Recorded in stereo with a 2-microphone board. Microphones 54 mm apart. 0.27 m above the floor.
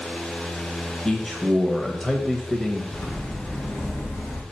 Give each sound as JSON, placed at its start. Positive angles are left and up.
{"t": 1.1, "sound": "a man speaking", "side_deg": 10, "distance_m": 0.9}
{"t": 2.9, "sound": "footsteps", "side_deg": 35, "distance_m": 4.0}